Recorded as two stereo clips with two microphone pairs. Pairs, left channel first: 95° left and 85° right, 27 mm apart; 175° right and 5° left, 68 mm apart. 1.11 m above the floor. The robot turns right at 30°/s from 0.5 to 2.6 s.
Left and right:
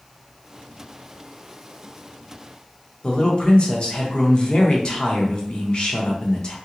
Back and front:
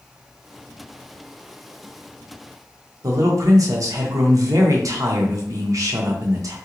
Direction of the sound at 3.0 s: 40° left.